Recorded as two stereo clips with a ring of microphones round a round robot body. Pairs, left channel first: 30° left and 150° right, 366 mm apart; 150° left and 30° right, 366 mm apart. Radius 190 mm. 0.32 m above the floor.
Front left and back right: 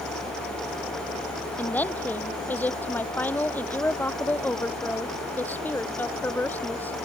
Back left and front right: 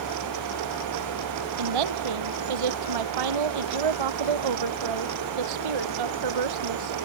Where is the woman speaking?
55° right.